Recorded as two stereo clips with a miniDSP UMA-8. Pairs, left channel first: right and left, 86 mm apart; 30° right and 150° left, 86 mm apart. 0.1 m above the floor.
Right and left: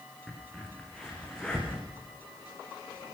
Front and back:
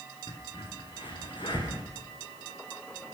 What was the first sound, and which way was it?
A crack, 10° right.